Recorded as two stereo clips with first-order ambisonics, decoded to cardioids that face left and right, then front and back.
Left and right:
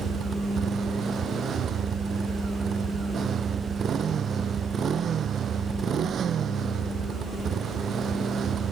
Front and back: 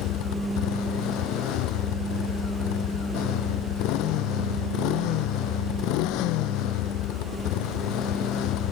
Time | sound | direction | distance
0.0 | a motorcycle | 30° right | ?